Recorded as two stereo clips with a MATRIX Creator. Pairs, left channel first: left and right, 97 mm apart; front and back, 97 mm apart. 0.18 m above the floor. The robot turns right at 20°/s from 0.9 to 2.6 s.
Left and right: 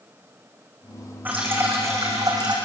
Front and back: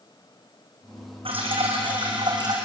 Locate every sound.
1.2 s dripping: 160° right, 5.5 m; by 2.5 s 135° right, 5.5 m